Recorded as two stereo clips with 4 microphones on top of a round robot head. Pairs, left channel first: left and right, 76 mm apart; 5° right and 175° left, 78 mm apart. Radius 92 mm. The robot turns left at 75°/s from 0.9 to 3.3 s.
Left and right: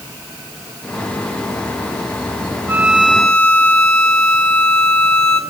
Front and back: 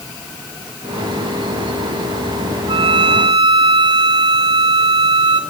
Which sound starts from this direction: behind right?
A violin, at 2.7 s.